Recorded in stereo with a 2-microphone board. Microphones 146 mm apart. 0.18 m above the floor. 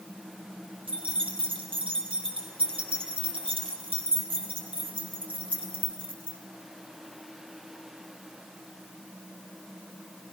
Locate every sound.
0.9 s keys jangling: 40° right (ahead or behind), 3.5 m